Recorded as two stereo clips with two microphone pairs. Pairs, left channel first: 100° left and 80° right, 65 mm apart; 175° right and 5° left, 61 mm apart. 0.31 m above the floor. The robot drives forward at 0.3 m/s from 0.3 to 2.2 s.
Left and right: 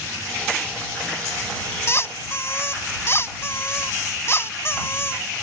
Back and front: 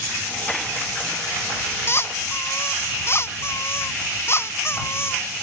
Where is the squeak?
145° left.